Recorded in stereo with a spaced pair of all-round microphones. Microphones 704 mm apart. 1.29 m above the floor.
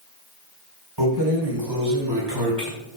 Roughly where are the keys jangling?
Right.